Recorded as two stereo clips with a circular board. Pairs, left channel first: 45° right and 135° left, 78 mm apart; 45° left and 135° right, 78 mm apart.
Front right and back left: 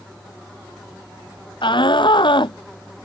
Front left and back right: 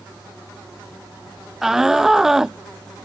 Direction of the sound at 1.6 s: 50° right.